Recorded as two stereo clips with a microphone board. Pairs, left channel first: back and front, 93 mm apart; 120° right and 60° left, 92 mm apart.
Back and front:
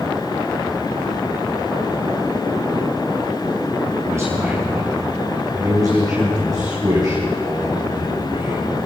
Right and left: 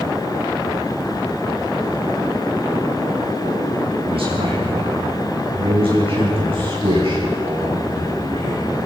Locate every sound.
4.1 s a man speaking: 60° left, 6 m; by 8.8 s 40° left, 9.5 m